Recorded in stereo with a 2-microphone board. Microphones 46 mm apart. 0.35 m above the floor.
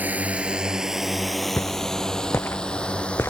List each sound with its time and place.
0.0 s a drone: 35° right (ahead or behind); by 3.3 s 30° left (ahead or behind)
1.6 s footsteps: 55° left (ahead or behind); by 3.3 s 70° left (ahead or behind)